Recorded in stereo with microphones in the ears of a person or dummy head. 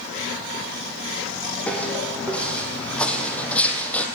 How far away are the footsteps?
About 5 m.